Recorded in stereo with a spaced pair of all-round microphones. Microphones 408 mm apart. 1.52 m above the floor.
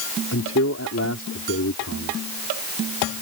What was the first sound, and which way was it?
A man speaking, 35° left (ahead or behind).